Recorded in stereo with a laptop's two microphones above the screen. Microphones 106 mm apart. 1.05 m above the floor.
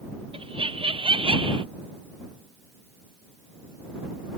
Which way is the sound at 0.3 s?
60° right (ahead or behind).